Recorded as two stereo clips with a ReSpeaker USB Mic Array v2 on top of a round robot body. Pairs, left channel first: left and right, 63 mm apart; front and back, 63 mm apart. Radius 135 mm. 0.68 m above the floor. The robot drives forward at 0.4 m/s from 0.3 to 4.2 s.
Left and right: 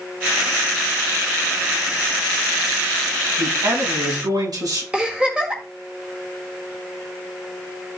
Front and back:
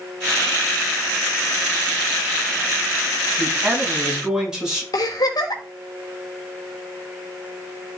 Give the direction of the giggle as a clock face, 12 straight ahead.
12 o'clock.